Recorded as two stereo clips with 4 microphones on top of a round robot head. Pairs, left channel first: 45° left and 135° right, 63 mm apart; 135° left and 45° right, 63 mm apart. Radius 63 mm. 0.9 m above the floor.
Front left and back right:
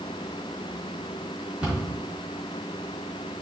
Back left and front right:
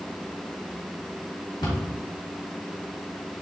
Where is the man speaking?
I don't hear a man speaking.